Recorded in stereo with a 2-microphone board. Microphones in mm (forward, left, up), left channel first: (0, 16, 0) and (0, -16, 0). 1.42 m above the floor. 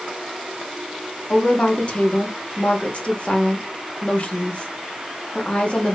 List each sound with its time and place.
1.3 s a woman speaking: 40° left (ahead or behind), 1.1 m